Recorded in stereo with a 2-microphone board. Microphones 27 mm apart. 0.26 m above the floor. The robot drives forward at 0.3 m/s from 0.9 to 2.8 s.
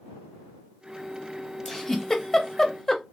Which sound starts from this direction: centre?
A giggle, at 1.6 s.